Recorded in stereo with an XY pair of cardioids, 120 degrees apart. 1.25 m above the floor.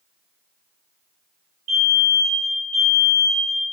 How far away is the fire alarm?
About 3 m.